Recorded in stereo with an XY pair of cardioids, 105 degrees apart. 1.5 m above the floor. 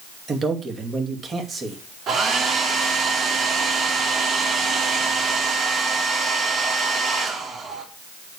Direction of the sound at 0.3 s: 40° right.